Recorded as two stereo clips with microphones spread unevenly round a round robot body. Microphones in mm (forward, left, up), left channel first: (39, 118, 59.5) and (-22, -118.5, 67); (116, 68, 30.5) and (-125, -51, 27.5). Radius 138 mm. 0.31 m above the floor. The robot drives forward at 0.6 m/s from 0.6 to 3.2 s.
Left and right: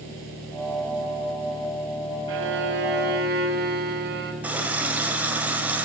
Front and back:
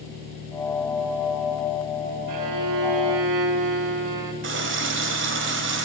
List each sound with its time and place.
2.3 s a violin: 140° right, 1.0 m; by 4.3 s 155° right, 1.5 m
4.4 s a running tap: 170° left, 1.2 m